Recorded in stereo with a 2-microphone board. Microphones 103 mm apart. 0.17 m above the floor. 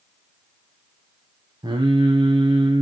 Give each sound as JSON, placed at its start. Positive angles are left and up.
{"t": 1.6, "sound": "singing", "side_deg": -40, "distance_m": 3.0}